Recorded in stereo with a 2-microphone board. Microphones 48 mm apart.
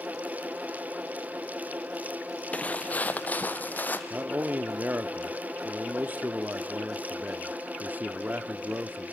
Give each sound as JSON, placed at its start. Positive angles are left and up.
{"t": 2.5, "sound": "footsteps", "side_deg": 30, "distance_m": 1.0}
{"t": 4.1, "sound": "a man speaking", "side_deg": -40, "distance_m": 0.7}